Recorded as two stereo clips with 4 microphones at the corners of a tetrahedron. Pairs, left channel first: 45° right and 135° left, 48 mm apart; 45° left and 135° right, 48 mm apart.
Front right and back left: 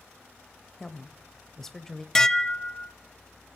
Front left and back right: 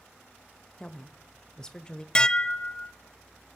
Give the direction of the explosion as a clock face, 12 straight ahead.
I don't hear an explosion.